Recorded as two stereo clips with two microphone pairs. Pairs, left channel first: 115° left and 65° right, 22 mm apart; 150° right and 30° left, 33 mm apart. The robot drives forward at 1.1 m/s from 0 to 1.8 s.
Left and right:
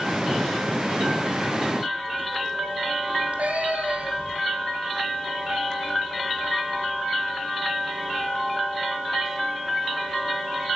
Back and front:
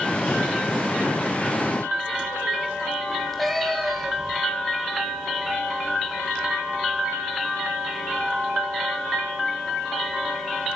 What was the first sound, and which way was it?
A cat meowing, 60° right.